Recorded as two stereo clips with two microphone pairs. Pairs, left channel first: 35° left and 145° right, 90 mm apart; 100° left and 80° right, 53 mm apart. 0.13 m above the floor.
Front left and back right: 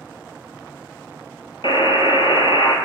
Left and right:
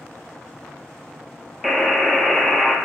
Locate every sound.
1.6 s a buzzer: 15° left, 0.9 m